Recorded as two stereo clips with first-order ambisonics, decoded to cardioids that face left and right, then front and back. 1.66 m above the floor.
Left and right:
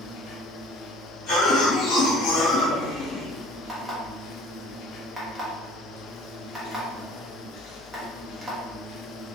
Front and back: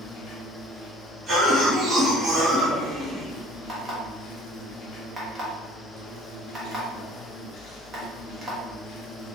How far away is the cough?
About 1.6 m.